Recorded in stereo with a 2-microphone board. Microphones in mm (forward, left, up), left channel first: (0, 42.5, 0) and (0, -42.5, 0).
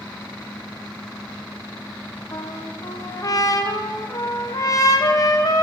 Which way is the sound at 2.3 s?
45° left (ahead or behind).